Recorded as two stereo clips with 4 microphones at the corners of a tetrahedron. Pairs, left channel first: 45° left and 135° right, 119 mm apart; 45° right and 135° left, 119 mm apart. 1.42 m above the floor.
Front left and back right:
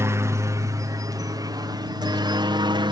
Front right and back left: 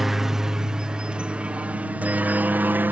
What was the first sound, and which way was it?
A helicopter, 140° right.